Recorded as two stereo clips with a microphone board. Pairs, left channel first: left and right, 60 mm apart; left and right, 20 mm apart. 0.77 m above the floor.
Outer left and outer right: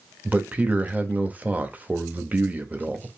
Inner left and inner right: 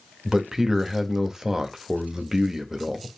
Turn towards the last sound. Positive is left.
turn(degrees=-25)  # may be behind; listen again after turning